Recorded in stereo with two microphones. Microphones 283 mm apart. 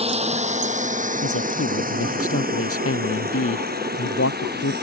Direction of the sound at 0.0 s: 20° right (ahead or behind).